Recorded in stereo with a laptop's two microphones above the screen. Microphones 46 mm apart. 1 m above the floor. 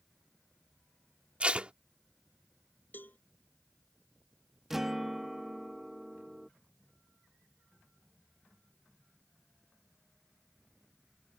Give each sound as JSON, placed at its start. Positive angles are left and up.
{"t": 1.4, "sound": "tape being pulled", "side_deg": -25}
{"t": 2.9, "sound": "a cowbell", "side_deg": 40}
{"t": 4.7, "sound": "a guitar", "side_deg": -10}